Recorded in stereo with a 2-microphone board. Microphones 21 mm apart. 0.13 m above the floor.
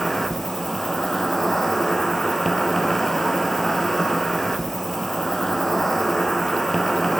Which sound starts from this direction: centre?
An insect, at 0.0 s.